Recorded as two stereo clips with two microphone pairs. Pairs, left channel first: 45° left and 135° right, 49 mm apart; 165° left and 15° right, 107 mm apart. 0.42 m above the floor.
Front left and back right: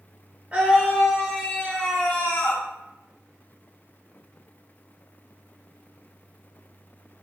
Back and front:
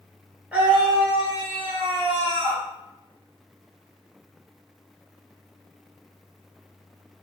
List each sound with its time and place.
0.5 s a scream: 90° right, 0.9 m; by 2.6 s 10° left, 1.5 m